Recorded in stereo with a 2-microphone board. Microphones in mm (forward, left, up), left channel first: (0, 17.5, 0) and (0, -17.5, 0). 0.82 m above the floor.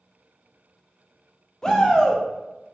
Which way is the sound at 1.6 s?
20° left (ahead or behind).